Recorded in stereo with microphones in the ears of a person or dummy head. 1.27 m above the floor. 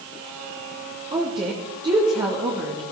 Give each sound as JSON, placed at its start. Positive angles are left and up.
{"t": 1.1, "sound": "a woman speaking", "side_deg": -20, "distance_m": 2.5}